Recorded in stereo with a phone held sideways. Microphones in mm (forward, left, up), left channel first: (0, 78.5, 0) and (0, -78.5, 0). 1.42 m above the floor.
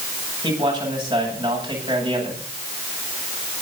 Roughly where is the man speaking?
Right.